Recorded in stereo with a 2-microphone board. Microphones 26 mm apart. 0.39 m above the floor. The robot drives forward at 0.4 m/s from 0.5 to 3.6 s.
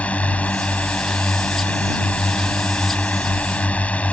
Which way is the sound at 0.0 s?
65° left (ahead or behind).